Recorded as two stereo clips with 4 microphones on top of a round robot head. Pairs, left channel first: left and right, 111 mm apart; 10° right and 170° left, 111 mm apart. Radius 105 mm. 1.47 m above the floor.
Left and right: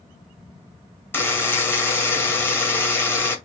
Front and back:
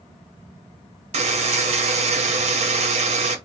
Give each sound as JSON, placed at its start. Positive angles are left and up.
{"t": 1.1, "sound": "a buzzer", "azimuth_deg": 160, "distance_m": 0.9}